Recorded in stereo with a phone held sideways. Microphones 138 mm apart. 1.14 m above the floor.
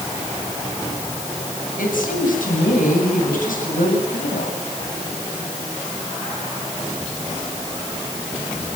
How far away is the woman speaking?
About 8.5 m.